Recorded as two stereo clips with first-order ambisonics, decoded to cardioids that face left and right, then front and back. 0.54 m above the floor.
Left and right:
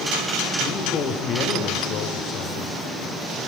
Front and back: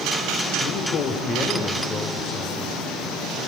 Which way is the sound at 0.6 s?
30° left.